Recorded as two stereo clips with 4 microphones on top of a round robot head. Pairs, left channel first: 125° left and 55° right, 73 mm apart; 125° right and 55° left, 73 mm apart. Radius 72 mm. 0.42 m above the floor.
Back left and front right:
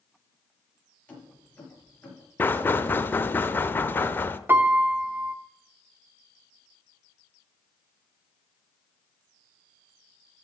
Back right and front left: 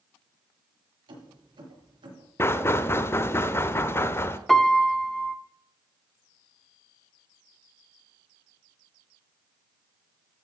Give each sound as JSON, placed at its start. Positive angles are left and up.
{"t": 1.1, "sound": "keys jangling", "azimuth_deg": 55, "distance_m": 6.0}
{"t": 2.4, "sound": "knocking", "azimuth_deg": -175, "distance_m": 0.8}
{"t": 4.5, "sound": "a piano", "azimuth_deg": -40, "distance_m": 1.1}